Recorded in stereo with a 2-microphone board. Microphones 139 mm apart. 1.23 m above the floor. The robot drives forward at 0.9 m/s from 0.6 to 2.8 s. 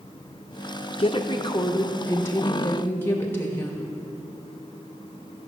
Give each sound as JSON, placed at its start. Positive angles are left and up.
{"t": 1.0, "sound": "a woman speaking", "side_deg": 45, "distance_m": 0.9}